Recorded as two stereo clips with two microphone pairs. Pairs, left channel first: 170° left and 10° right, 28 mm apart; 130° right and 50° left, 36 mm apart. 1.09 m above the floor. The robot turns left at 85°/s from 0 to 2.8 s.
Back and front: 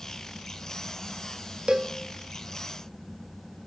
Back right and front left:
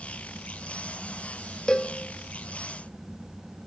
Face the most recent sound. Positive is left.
turn(degrees=-165)